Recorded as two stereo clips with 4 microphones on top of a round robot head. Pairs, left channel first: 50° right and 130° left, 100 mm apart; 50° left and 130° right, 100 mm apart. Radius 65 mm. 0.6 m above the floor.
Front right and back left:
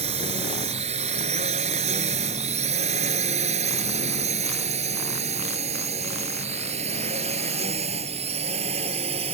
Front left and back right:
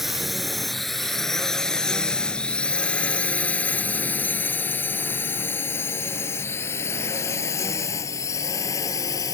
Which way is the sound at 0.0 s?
145° left.